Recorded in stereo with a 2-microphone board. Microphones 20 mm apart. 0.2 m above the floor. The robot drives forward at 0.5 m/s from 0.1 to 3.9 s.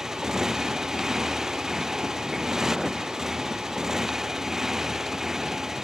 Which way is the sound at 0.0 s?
20° right (ahead or behind).